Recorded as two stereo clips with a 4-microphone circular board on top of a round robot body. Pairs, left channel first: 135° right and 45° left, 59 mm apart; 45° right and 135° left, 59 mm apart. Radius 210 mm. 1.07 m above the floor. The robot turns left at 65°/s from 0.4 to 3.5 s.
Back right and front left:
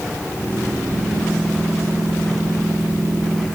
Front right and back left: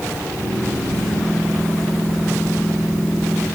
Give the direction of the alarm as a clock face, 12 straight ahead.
No alarm in this recording.